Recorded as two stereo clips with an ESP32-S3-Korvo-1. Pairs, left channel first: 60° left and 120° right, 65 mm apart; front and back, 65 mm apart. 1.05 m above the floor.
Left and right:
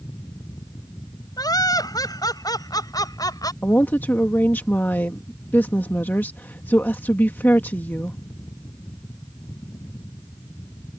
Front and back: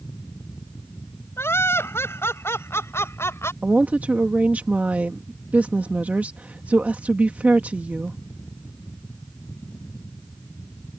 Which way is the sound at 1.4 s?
50° left.